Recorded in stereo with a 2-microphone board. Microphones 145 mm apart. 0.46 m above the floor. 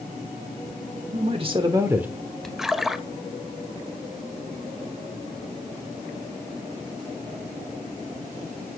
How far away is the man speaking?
About 1.1 m.